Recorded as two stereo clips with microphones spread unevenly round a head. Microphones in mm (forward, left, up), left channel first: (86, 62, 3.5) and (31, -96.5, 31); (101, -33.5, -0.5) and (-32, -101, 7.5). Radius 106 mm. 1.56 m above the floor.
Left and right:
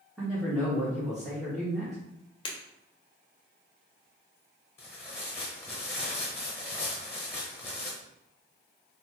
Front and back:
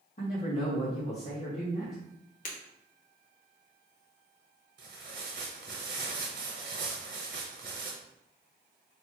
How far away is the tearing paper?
About 0.8 m.